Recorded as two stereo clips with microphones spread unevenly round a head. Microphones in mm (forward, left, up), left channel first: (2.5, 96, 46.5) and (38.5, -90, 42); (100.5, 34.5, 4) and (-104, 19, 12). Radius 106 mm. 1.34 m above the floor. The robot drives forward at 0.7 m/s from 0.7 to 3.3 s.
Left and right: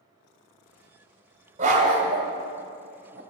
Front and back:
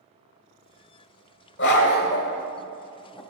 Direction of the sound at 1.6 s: 25° right.